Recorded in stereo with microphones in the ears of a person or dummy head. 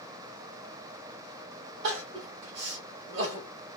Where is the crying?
50° right (ahead or behind), 1.2 m.